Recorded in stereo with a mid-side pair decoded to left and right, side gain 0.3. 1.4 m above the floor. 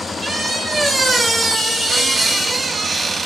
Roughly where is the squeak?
Ahead right.